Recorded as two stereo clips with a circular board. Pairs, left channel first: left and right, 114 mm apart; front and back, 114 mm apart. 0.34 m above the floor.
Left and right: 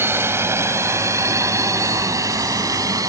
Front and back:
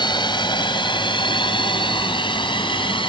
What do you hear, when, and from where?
0.0 s a drone: 30° right; by 3.1 s 35° right